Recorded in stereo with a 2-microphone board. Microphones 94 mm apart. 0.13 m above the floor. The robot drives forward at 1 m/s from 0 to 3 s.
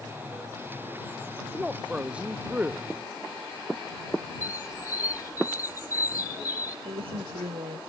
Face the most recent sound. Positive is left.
turn(degrees=-80)